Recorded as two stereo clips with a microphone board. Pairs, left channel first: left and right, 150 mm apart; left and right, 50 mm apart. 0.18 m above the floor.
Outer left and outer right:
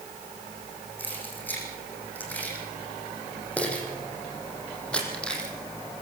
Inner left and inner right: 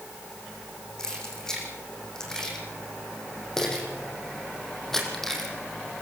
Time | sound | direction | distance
1.0 | keys jangling | 10° left (ahead or behind) | 8.5 m